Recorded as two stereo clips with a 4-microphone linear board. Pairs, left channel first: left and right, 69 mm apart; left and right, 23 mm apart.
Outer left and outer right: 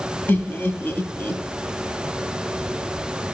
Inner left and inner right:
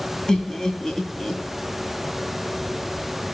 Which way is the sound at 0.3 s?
30° left (ahead or behind).